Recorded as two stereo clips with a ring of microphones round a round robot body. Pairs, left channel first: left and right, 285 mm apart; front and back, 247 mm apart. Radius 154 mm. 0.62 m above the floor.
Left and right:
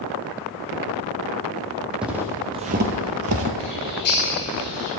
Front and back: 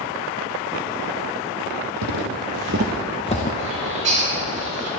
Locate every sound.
2.0 s footsteps: 175° right, 1.4 m; by 3.5 s 55° right, 0.9 m
3.6 s a bird: 145° left, 4 m